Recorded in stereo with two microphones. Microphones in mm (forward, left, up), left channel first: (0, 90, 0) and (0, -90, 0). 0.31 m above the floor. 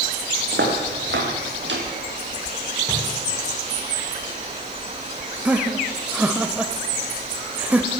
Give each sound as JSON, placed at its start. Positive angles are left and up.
{"t": 0.5, "sound": "footsteps", "side_deg": -80, "distance_m": 5.0}
{"t": 2.9, "sound": "a drawer", "side_deg": 15, "distance_m": 8.5}
{"t": 5.5, "sound": "laughter", "side_deg": -10, "distance_m": 0.9}